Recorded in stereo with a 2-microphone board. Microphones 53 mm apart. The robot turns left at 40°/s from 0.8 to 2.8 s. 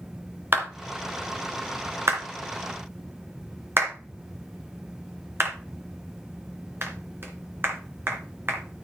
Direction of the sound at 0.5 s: 40° right (ahead or behind).